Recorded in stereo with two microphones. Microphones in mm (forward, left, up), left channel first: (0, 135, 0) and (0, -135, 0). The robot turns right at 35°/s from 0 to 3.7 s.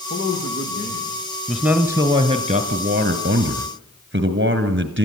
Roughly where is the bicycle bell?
I don't hear a bicycle bell.